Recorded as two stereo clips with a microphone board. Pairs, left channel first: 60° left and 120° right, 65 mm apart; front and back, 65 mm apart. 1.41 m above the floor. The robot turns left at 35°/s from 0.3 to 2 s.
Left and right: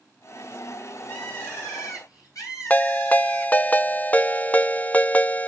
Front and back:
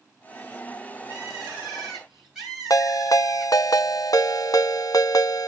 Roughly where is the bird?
Behind left.